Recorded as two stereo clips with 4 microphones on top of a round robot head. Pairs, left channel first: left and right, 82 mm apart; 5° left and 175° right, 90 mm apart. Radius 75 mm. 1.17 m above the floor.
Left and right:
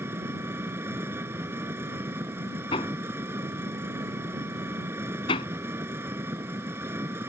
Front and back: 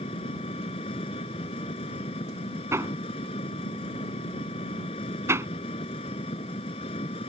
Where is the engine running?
30° right.